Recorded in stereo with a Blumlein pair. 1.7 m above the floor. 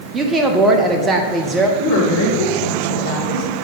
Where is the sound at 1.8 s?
55° left, 2 m.